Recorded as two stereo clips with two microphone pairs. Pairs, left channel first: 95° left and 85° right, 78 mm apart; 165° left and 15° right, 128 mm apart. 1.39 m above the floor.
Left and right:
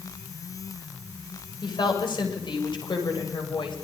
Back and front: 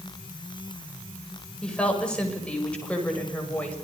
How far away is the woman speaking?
About 7.5 m.